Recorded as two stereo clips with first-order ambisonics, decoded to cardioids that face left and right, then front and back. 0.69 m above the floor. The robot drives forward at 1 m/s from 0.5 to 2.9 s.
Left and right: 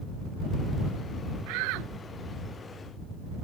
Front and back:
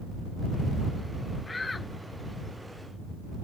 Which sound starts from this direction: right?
A shout, at 1.5 s.